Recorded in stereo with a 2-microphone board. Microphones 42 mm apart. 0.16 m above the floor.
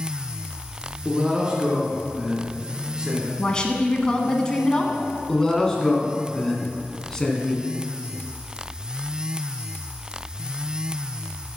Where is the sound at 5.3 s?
15° left (ahead or behind), 1.5 m.